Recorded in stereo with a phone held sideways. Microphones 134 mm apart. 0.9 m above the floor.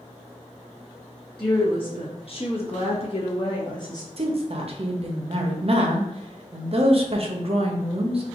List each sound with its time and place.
1.4 s a woman speaking: 40° left (ahead or behind), 1.3 m; by 4.1 s 30° left (ahead or behind), 1.0 m
4.2 s a woman speaking: 45° right (ahead or behind), 0.6 m